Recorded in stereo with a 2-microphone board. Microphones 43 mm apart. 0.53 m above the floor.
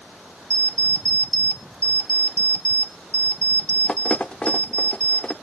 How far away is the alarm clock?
About 0.6 m.